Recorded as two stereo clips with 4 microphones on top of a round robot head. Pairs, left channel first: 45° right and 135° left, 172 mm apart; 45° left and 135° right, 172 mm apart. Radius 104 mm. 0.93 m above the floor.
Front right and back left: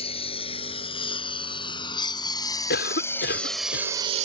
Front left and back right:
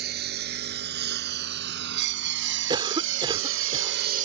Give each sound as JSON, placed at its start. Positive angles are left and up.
{"t": 0.0, "sound": "a lawn mower", "azimuth_deg": -105}
{"t": 2.7, "sound": "a cough", "azimuth_deg": -70}